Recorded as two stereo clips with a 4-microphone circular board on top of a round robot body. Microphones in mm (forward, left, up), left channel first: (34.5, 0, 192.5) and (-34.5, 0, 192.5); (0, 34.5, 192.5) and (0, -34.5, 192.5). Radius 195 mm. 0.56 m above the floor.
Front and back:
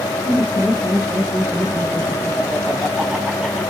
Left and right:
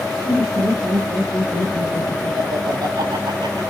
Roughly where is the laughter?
Right.